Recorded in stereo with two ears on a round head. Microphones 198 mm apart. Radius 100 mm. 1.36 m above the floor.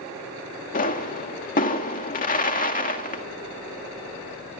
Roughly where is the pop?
Left.